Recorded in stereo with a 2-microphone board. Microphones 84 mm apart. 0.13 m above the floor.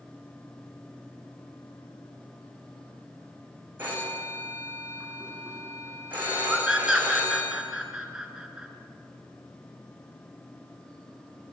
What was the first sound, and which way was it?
A phone ringing, 20° right (ahead or behind).